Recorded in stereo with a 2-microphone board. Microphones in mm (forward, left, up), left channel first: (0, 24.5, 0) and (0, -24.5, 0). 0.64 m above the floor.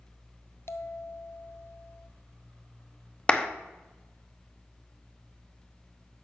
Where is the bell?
55° left (ahead or behind), 0.6 m.